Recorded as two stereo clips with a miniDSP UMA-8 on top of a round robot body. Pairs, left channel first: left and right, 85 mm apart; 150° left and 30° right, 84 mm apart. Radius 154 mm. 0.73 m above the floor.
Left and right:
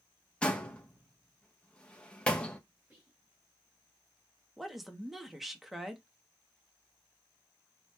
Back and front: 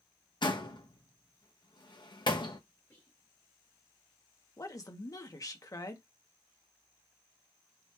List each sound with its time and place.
0.4 s a door slam: 165° left, 1.1 m
2.9 s whispering: 150° right, 1.5 m
4.6 s a woman speaking: straight behind, 1.1 m